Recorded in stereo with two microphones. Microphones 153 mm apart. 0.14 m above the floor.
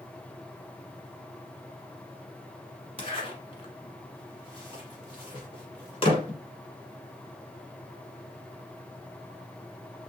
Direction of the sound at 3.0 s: 35° left (ahead or behind).